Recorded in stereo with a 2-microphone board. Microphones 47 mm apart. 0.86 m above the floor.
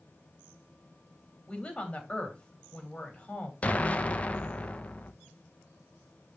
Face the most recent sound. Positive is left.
turn(degrees=30)  # may be behind; listen again after turning